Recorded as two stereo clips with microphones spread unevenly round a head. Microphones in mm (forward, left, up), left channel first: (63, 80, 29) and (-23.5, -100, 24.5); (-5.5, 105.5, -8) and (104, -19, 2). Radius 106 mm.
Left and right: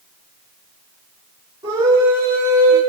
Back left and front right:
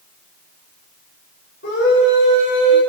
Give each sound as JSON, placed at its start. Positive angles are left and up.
{"t": 1.6, "sound": "a scream", "azimuth_deg": 175, "distance_m": 4.5}